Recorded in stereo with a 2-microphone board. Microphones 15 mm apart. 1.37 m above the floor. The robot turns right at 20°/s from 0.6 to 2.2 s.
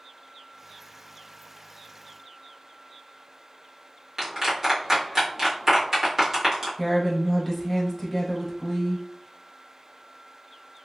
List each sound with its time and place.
4.2 s a clap: 30° right (ahead or behind), 1.6 m
6.8 s a woman speaking: 15° left (ahead or behind), 0.7 m